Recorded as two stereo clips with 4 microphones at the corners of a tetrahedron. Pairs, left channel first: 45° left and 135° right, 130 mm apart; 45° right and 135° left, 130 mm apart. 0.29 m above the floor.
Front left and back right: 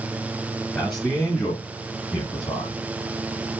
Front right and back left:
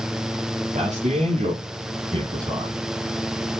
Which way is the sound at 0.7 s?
125° left.